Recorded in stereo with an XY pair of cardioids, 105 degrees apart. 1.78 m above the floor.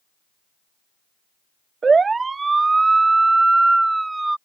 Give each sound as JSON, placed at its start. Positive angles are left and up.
{"t": 1.8, "sound": "a siren", "azimuth_deg": -35}